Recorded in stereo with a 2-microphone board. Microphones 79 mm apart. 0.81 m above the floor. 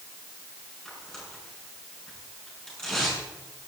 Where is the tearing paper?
10° left (ahead or behind), 6 m.